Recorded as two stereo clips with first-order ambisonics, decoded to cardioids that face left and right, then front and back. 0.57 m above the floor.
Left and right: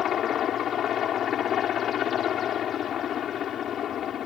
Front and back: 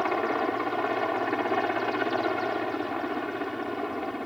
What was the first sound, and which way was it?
A helicopter, 85° left.